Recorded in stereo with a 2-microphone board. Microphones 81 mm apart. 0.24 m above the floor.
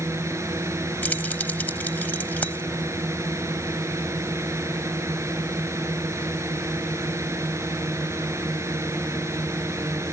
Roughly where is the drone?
Right.